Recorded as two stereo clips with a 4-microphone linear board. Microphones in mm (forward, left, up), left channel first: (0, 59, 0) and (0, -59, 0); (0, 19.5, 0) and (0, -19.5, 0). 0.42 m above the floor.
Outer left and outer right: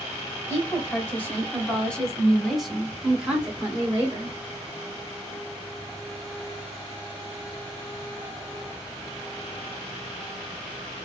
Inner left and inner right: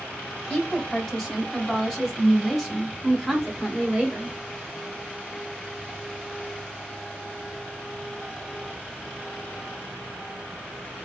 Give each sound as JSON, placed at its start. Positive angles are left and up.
{"t": 0.5, "sound": "a woman speaking", "side_deg": 15, "distance_m": 2.0}